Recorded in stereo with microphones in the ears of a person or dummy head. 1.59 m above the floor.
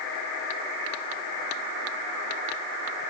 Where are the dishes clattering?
I don't hear dishes clattering.